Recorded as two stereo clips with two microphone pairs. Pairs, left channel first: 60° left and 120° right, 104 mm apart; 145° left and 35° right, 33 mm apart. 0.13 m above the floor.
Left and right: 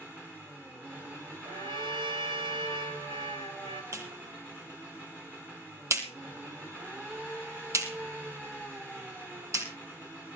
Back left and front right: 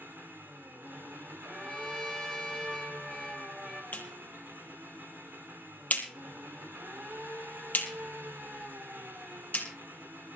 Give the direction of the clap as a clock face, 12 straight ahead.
6 o'clock.